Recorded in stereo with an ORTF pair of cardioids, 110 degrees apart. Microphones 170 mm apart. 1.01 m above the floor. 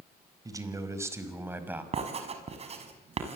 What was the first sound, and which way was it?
A man speaking, 20° right.